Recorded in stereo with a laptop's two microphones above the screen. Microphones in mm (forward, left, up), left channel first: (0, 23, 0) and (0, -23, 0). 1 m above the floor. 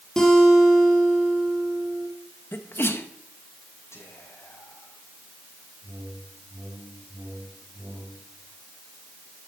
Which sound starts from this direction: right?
A whoosh, at 5.8 s.